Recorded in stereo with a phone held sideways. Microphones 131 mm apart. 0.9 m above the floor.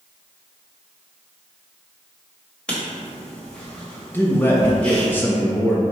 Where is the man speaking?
15° left (ahead or behind), 0.6 m.